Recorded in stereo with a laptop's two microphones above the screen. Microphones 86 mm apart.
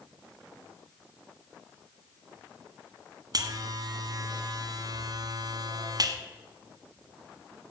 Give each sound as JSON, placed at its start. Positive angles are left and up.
{"t": 3.3, "sound": "a buzzer", "side_deg": -50, "distance_m": 1.3}